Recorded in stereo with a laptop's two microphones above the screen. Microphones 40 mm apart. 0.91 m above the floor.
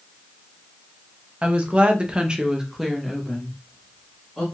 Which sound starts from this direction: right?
A woman speaking, at 1.4 s.